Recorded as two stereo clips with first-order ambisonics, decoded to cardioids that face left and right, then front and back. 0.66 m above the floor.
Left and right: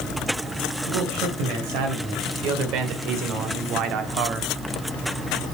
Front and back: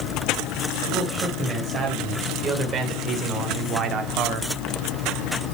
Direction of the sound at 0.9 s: 115° right.